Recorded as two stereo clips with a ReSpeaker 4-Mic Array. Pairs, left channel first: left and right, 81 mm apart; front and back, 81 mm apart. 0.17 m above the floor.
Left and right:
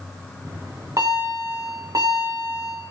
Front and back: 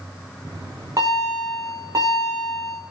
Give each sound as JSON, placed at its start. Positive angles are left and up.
{"t": 0.5, "sound": "a bell", "azimuth_deg": -135, "distance_m": 6.0}